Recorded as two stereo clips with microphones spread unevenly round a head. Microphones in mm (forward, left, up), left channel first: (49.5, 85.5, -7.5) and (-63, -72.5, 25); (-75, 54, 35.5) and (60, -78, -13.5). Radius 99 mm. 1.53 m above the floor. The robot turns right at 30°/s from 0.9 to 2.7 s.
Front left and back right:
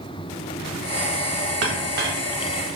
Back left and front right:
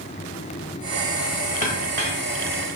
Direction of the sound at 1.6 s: 100° right.